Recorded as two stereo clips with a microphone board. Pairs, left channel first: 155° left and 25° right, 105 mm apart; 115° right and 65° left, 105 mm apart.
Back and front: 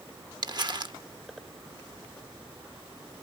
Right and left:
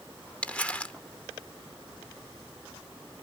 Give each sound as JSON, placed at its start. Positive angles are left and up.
{"t": 0.4, "sound": "crumpling", "azimuth_deg": -40, "distance_m": 0.6}